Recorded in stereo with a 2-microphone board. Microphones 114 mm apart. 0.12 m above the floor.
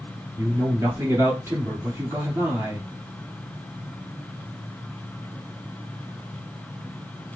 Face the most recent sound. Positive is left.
turn(degrees=-25)  # may be behind; listen again after turning